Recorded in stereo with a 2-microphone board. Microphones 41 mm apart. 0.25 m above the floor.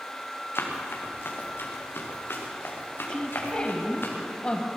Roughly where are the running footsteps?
Left.